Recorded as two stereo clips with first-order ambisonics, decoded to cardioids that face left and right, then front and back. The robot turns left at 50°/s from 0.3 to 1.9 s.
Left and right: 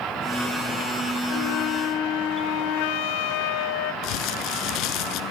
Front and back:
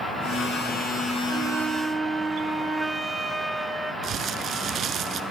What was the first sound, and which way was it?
A flute, 125° left.